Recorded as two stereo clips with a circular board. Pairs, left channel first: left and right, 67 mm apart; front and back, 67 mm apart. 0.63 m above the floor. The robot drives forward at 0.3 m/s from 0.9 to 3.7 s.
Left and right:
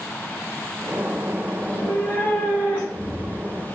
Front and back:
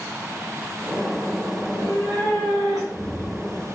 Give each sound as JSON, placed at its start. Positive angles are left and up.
{"t": 1.6, "sound": "a cat meowing", "azimuth_deg": 155, "distance_m": 1.1}